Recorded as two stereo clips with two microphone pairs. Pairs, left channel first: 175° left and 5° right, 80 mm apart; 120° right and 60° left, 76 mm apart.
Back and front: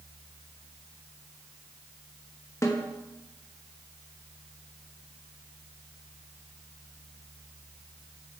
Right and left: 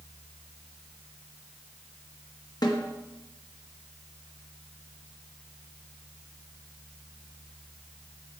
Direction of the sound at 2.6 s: 140° right.